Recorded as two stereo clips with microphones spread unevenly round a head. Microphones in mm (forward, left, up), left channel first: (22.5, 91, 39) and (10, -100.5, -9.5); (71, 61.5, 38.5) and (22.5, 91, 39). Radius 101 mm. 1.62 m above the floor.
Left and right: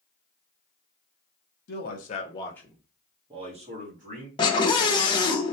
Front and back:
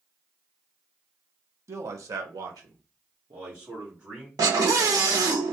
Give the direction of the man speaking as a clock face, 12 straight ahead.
8 o'clock.